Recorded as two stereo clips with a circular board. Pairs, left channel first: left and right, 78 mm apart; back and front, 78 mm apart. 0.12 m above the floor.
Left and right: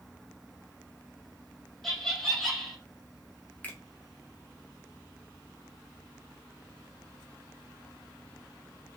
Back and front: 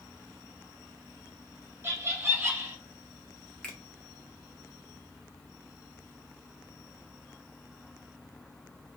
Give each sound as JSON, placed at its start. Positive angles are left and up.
{"t": 1.8, "sound": "laughter", "azimuth_deg": 5, "distance_m": 1.2}
{"t": 3.6, "sound": "a finger snap", "azimuth_deg": 115, "distance_m": 0.8}